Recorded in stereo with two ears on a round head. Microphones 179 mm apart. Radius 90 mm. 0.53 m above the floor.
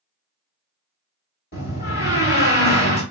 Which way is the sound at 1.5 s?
45° left (ahead or behind).